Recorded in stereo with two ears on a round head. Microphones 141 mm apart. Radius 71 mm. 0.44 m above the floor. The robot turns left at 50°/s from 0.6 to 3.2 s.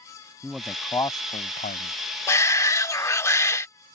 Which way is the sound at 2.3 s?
20° left (ahead or behind).